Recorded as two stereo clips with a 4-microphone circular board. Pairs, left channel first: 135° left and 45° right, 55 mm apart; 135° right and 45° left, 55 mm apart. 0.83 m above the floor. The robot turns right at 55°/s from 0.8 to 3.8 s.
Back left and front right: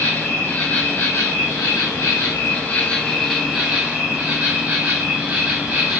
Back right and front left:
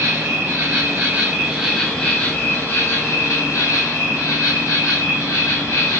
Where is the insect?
85° left, 1.6 m; by 6.0 s 110° right, 1.6 m.